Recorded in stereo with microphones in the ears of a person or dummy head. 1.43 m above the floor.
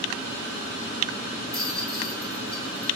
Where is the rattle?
5° left (ahead or behind), 1.4 m.